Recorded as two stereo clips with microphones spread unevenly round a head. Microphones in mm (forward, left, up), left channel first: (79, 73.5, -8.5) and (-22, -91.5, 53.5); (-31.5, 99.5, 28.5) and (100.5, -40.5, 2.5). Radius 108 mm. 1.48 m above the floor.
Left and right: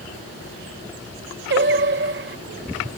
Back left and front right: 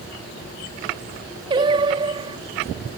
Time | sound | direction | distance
1.5 | singing | 120° right | ?